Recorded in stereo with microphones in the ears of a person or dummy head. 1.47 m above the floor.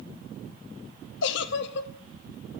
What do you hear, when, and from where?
1.2 s a giggle: 70° left (ahead or behind), 0.5 m